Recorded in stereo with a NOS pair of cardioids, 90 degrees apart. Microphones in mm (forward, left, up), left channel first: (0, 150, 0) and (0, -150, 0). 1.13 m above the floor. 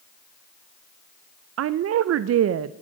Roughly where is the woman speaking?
Ahead right.